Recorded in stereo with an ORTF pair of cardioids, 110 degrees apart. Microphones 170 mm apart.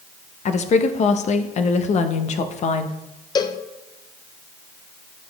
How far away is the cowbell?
About 0.5 m.